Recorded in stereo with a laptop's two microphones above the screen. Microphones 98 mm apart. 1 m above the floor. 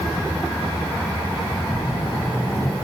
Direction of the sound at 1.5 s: 25° left (ahead or behind).